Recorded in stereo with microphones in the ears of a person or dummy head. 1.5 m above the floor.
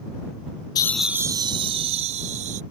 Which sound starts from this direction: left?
Laughter, at 0.8 s.